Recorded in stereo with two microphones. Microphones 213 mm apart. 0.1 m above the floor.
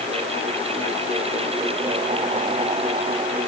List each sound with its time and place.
Only background noise.